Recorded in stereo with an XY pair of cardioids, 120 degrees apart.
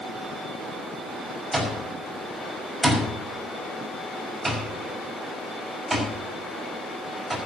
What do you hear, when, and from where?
1.5 s an alarm clock: 5° right, 5.5 m